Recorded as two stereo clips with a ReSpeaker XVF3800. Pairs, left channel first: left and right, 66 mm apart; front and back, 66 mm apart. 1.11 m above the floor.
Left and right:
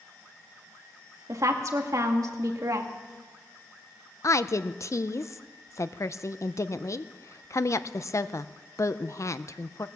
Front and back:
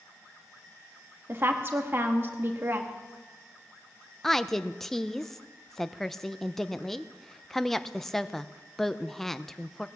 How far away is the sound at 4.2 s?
About 0.5 m.